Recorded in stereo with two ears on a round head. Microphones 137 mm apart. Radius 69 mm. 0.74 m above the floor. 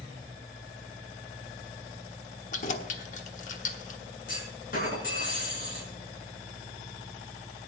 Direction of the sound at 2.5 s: 50° left (ahead or behind).